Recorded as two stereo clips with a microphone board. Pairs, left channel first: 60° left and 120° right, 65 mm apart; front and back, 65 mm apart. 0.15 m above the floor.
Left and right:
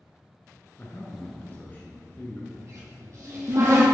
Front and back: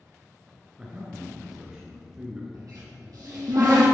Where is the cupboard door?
155° right, 3 m.